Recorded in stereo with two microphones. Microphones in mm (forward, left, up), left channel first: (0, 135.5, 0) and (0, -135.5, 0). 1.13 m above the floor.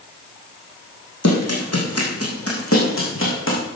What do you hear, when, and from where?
1.2 s running footsteps: 70° left (ahead or behind), 4 m; by 3.6 s 45° left (ahead or behind), 5 m